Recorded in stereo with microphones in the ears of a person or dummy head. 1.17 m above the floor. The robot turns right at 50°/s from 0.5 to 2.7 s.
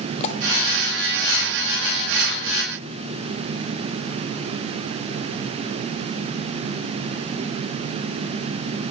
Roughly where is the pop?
Left.